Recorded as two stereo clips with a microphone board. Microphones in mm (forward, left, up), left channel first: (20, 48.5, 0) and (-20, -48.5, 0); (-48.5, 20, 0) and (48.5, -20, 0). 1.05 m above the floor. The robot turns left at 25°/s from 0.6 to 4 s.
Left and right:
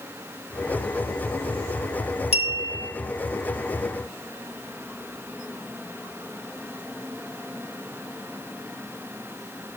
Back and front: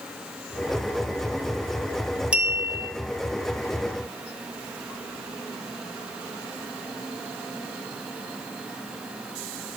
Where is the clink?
55° left, 0.8 m; by 2.9 s 40° left, 0.8 m.